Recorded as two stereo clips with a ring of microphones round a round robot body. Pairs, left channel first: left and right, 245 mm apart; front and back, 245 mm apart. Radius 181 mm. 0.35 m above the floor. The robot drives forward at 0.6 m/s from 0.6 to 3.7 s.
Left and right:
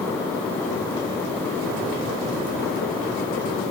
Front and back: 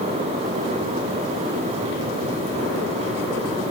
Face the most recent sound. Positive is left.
No sound to turn to.